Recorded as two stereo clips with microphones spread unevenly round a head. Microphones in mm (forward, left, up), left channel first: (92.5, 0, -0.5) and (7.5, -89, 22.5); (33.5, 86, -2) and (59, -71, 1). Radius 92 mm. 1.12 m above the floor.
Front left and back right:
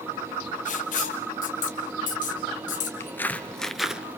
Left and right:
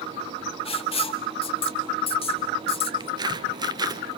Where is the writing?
45° left, 2 m.